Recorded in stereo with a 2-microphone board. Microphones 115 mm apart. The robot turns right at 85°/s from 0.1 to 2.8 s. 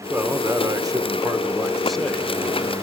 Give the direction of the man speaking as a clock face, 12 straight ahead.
5 o'clock.